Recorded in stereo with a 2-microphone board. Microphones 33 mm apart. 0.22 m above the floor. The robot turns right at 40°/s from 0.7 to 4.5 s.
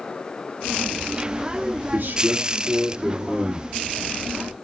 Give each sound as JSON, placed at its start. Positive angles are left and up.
{"t": 1.9, "sound": "a man speaking", "azimuth_deg": -90, "distance_m": 3.5}